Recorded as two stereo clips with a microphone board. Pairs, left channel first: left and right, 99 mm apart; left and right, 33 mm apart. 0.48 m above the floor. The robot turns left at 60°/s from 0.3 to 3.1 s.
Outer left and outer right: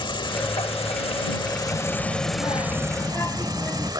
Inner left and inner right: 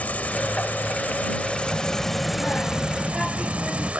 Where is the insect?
120° left; by 4.0 s 45° right.